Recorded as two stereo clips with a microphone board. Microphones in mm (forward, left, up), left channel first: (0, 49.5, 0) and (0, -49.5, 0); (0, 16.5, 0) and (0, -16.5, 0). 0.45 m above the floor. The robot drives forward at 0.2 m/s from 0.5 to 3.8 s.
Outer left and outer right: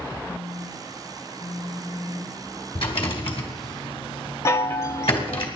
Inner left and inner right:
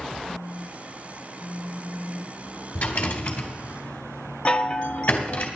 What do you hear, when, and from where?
0.3 s a phone buzzing: 75° left (ahead or behind), 7.5 m; by 2.4 s 80° left, 7.5 m
2.8 s a rattle: 70° left (ahead or behind), 2.5 m; by 5.5 s 75° left (ahead or behind), 2 m
4.5 s a chime: 30° left (ahead or behind), 0.7 m